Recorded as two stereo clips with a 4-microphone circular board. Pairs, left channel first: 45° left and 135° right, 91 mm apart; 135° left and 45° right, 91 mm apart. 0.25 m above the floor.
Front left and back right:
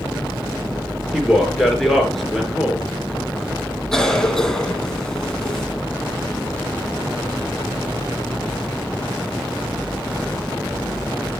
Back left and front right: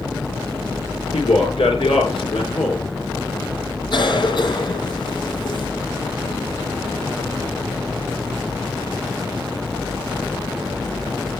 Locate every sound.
1.1 s a man speaking: 130° left, 4 m
3.9 s a cough: 125° left, 2.5 m